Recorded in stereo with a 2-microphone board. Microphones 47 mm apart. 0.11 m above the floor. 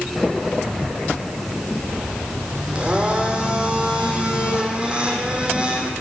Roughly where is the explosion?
I don't hear an explosion.